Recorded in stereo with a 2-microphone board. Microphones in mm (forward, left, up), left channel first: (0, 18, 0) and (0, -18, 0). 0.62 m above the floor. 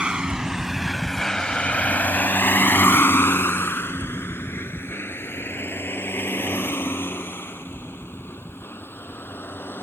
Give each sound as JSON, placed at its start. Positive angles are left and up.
{"t": 0.0, "sound": "a vehicle", "side_deg": -25}